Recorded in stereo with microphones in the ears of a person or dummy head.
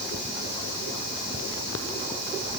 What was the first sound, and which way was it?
Only background noise.